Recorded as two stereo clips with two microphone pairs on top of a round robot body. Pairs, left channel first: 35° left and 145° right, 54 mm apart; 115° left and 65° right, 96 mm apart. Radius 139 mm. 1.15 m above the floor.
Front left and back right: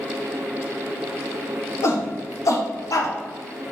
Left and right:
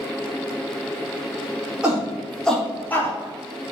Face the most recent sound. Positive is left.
turn(degrees=50)